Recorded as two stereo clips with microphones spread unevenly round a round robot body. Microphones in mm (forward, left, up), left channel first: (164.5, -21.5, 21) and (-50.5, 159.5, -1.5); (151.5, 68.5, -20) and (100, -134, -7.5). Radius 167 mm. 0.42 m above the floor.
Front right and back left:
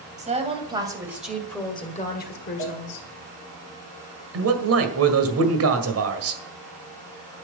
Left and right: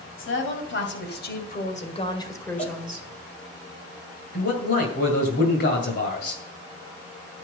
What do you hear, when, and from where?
0.2 s a woman speaking: 75° left, 3 m; by 3.1 s 20° right, 2 m
2.6 s a cowbell: 10° left, 2 m
4.3 s a man speaking: 120° left, 1.9 m